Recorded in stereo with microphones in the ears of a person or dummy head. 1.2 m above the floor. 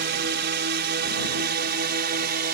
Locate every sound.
0.0 s a drone: 50° right (ahead or behind); by 2.6 s 45° right (ahead or behind)